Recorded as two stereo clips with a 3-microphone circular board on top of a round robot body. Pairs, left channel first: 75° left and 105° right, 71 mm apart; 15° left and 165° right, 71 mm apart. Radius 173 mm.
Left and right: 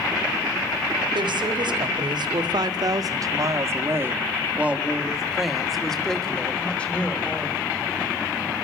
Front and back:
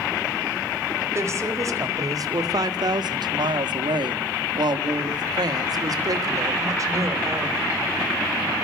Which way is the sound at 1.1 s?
110° right.